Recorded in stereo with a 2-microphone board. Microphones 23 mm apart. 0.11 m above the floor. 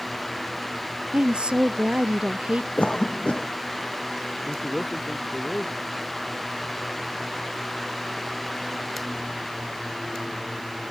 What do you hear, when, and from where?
1.1 s a woman speaking: 55° right (ahead or behind)
2.8 s a cough: 70° left (ahead or behind)
4.4 s a man speaking: 80° left